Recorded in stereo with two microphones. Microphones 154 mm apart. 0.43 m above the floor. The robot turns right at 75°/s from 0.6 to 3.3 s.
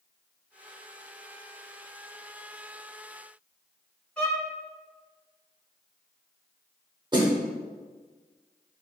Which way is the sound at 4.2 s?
5° left (ahead or behind).